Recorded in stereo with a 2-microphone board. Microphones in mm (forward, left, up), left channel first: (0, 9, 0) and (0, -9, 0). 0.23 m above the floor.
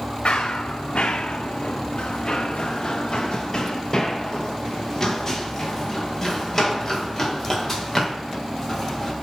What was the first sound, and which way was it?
Running footsteps, 70° left (ahead or behind).